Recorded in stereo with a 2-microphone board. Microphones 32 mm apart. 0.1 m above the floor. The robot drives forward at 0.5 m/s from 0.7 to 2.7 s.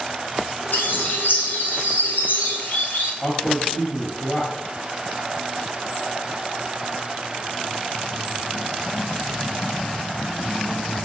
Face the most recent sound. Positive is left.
turn(degrees=25)  # may be behind; listen again after turning